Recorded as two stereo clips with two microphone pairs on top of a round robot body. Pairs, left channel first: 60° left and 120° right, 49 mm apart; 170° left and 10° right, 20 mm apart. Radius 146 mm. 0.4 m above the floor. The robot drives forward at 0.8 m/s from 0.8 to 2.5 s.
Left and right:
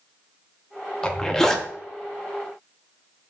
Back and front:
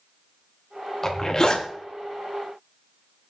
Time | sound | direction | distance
1.0 | a zipper | 100° left | 1.4 m